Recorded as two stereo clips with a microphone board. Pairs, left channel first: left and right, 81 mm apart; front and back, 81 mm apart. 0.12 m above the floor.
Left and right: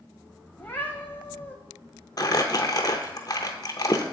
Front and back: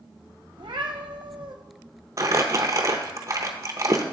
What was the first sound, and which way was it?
A cat meowing, 155° left.